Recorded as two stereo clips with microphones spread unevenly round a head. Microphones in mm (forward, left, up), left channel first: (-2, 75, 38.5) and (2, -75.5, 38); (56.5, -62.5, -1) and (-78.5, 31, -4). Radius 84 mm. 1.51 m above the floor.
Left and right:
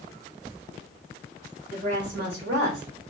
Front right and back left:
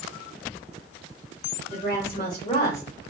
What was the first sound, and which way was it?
A woman speaking, 65° right.